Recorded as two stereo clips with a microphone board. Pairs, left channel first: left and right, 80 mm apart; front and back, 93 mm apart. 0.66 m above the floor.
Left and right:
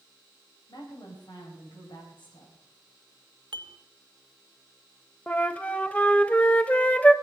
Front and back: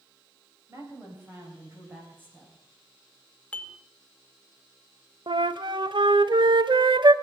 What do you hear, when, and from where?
0.7 s a woman speaking: 120° left, 4 m; by 2.5 s 110° left, 6 m
3.5 s dishes clattering: 75° right, 0.9 m
5.3 s a flute: 160° left, 0.6 m